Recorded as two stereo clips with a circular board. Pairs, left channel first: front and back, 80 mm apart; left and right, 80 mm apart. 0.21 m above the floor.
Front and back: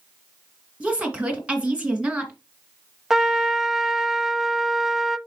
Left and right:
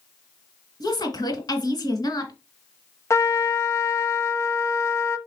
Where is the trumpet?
100° left, 0.6 m.